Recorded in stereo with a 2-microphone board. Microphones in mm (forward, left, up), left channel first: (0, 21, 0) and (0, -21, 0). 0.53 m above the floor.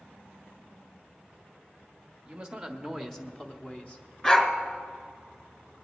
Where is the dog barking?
20° left (ahead or behind), 1.4 m.